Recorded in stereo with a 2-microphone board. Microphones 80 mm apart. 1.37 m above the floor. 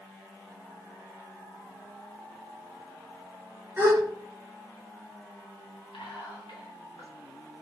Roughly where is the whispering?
Left.